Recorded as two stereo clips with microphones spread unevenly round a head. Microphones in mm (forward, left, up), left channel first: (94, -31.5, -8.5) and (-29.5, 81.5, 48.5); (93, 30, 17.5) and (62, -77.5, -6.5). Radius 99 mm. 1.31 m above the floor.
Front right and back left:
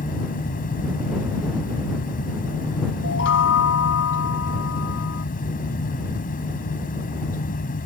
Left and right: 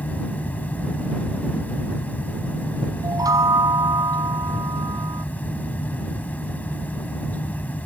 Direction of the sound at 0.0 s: Straight ahead.